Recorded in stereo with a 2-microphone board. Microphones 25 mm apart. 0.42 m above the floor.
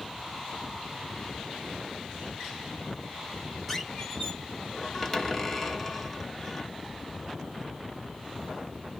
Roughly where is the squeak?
Centre.